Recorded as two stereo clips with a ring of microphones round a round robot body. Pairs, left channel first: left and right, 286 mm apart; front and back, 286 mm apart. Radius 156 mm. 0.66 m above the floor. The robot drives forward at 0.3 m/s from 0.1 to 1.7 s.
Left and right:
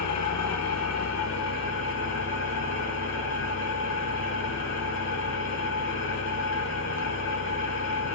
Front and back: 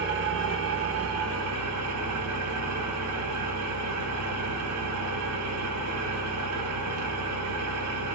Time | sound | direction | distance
0.0 | an engine running | 125° left | 1.1 m